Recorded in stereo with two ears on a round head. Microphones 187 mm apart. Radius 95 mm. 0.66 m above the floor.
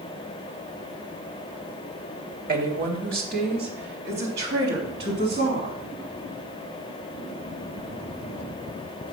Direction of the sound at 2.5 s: 40° right (ahead or behind).